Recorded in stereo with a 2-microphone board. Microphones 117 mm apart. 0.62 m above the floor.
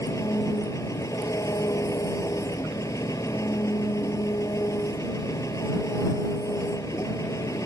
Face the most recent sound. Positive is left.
turn(degrees=25)  # may be behind; listen again after turning